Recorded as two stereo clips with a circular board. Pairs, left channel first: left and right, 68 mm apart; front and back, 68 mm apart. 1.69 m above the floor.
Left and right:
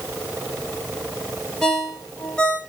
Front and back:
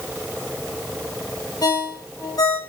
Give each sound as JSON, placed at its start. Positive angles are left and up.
{"t": 1.6, "sound": "a ringtone", "azimuth_deg": 10, "distance_m": 2.5}